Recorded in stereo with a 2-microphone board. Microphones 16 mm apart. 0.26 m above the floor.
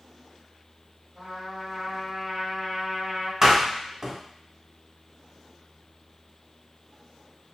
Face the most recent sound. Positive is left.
turn(degrees=-35)  # may be behind; listen again after turning